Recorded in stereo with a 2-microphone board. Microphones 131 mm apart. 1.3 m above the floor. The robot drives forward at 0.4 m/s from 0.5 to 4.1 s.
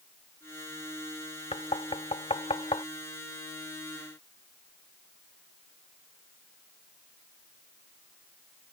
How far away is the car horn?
No car horn in this recording.